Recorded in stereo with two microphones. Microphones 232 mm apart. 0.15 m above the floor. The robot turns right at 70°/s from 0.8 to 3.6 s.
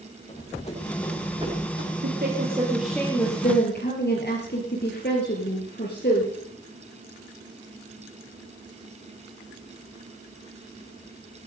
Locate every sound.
0.3 s running footsteps: 30° left (ahead or behind), 7 m; by 1.9 s 60° right (ahead or behind), 6.5 m
2.0 s a woman speaking: 60° right, 4 m; by 6.3 s 50° left, 4 m